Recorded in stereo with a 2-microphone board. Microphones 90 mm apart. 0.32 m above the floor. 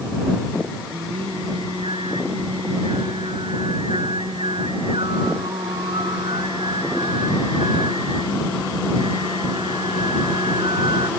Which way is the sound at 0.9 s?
80° right.